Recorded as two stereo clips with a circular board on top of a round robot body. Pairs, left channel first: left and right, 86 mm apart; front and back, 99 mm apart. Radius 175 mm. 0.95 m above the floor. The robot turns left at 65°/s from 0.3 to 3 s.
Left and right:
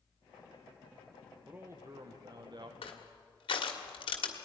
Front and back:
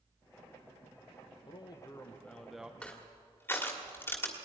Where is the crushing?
80° left, 1.3 m; by 4.3 s 70° left, 1.3 m.